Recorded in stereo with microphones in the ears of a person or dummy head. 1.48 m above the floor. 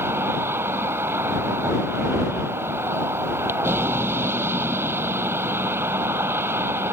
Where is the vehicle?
15° right (ahead or behind).